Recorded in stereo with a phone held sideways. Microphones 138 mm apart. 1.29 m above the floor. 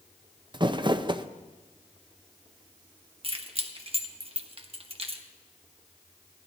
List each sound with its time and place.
0.5 s crumpling: 30° right (ahead or behind), 0.5 m
3.2 s keys jangling: 40° right (ahead or behind), 1.1 m